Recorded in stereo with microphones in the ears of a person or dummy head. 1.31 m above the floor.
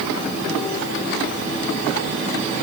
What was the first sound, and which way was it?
Only background noise.